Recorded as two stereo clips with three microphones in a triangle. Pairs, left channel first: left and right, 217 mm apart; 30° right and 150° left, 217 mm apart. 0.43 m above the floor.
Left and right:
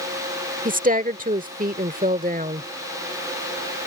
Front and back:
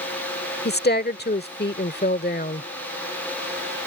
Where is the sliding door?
No sliding door in this recording.